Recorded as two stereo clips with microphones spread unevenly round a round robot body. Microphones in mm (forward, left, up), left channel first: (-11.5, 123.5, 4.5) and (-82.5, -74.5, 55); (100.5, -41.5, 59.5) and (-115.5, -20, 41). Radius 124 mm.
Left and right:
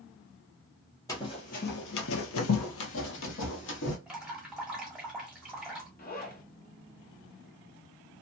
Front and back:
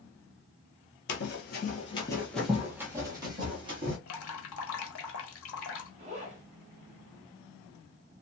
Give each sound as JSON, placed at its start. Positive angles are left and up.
{"t": 1.1, "sound": "running footsteps", "azimuth_deg": -15, "distance_m": 0.6}
{"t": 4.1, "sound": "dripping", "azimuth_deg": -20, "distance_m": 0.9}
{"t": 6.0, "sound": "a zipper", "azimuth_deg": 115, "distance_m": 1.1}